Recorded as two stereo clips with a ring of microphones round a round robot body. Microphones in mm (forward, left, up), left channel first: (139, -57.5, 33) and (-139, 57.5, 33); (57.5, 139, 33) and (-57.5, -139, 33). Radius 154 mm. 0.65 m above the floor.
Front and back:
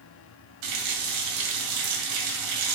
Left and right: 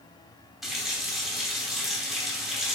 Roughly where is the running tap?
Behind.